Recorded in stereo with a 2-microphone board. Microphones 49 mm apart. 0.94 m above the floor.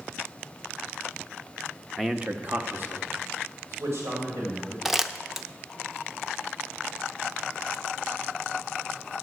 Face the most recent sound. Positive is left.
turn(degrees=-5)  # may be behind; listen again after turning